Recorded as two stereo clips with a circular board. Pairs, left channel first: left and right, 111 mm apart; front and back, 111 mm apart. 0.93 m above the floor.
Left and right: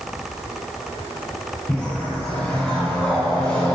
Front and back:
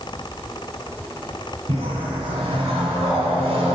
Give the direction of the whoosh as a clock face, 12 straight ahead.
6 o'clock.